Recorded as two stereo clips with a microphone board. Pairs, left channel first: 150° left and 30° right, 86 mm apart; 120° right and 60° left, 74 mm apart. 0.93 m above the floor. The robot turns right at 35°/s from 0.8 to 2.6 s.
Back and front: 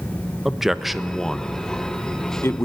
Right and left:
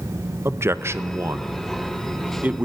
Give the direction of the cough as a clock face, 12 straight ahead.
I don't hear a cough.